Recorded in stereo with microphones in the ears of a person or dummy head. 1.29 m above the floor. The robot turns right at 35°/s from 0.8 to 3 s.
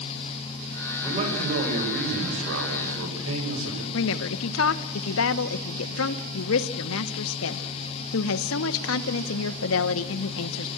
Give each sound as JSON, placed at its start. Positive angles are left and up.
{"t": 1.0, "sound": "a man speaking", "azimuth_deg": -150, "distance_m": 7.0}
{"t": 3.9, "sound": "a woman speaking", "side_deg": 75, "distance_m": 1.1}